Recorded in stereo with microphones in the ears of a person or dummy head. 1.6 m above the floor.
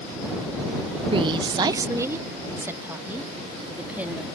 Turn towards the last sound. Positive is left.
turn(degrees=-10)  # may be behind; listen again after turning